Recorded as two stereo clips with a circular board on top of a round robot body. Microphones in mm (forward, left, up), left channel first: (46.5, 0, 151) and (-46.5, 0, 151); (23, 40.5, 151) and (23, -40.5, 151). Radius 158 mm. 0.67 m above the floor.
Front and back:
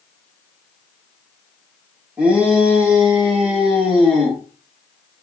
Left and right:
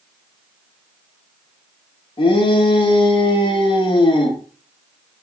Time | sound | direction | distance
2.2 | a shout | 100° left | 3.5 m